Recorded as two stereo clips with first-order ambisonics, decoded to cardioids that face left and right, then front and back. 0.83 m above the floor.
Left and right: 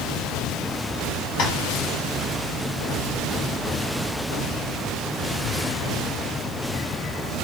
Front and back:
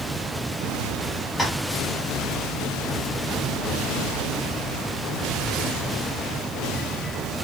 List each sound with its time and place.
1.4 s tapping: 70° left, 1.0 m